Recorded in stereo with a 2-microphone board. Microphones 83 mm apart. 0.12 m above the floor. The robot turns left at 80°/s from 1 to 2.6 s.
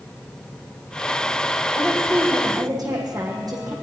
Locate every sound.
1.8 s a woman speaking: 10° left, 6 m; by 3.7 s 55° right, 6 m